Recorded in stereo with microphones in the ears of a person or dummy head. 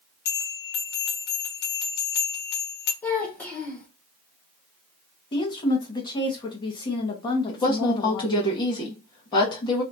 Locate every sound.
0.2 s a bell: 60° left (ahead or behind), 1.3 m
3.0 s a child speaking: 15° left (ahead or behind), 0.6 m
5.3 s a woman speaking: 25° left (ahead or behind), 0.9 m
7.5 s a woman speaking: 25° left (ahead or behind), 1.0 m